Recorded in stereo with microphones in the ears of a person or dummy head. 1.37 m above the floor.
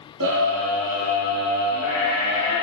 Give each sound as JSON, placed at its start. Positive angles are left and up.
{"t": 0.2, "sound": "a scream", "side_deg": -70, "distance_m": 4.0}